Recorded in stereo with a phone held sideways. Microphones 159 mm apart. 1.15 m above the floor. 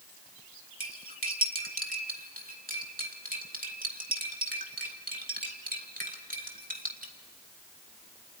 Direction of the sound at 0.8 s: 65° right (ahead or behind).